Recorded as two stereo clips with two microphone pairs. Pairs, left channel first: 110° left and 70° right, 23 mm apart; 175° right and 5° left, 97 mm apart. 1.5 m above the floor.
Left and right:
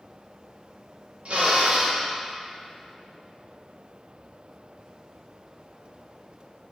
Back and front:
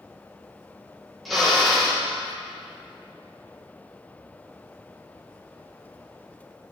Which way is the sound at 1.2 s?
85° right.